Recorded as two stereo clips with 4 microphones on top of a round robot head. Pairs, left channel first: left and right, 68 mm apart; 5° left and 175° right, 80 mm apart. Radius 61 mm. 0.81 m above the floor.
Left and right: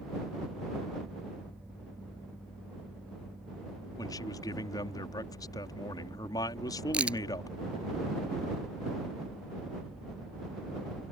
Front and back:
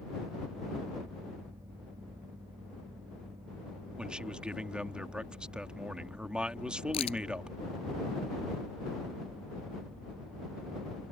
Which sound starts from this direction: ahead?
A crack, at 6.9 s.